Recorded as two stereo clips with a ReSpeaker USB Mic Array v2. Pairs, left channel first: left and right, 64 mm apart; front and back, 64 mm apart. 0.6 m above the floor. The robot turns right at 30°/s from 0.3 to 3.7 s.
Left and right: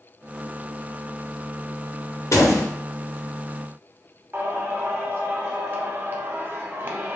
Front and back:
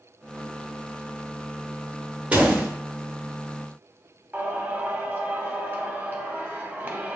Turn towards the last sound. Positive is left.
turn(degrees=-130)